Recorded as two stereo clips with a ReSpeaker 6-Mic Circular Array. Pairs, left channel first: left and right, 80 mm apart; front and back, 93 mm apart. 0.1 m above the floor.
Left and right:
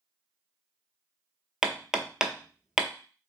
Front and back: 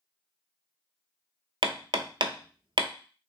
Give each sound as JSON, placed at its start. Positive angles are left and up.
{"t": 1.6, "sound": "hammering", "azimuth_deg": -170, "distance_m": 0.5}